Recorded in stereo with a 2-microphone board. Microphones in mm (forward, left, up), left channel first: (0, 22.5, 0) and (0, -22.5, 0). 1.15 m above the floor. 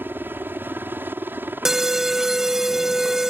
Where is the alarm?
10° right (ahead or behind).